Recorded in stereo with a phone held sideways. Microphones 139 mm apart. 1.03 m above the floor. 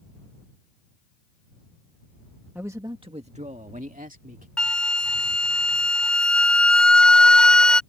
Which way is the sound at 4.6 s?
5° left (ahead or behind).